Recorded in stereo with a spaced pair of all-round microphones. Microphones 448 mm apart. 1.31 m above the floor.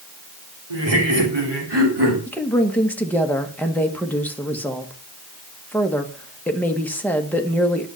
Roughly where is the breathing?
I don't hear breathing.